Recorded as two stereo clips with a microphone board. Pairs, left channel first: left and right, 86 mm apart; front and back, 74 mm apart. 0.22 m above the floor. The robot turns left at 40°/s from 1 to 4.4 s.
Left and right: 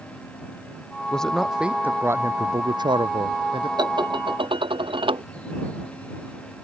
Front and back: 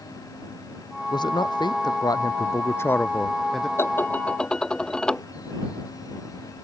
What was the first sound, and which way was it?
A man speaking, 10° left.